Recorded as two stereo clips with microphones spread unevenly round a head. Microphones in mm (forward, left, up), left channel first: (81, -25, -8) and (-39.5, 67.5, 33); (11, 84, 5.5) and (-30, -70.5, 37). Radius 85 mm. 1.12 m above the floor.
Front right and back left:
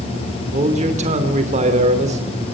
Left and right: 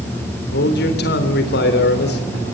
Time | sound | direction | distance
0.5 | a man speaking | 95° left | 3 m